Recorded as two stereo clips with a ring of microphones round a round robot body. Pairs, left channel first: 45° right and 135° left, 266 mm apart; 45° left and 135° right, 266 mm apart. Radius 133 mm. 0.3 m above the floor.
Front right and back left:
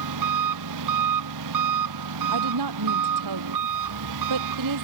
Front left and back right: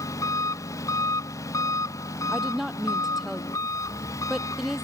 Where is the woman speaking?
135° left.